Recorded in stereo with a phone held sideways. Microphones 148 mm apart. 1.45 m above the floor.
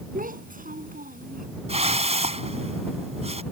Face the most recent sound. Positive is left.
turn(degrees=-45)  # may be behind; listen again after turning